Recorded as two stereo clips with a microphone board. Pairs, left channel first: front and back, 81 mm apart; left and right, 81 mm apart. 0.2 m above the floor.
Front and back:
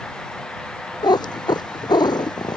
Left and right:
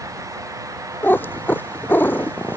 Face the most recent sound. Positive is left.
turn(degrees=25)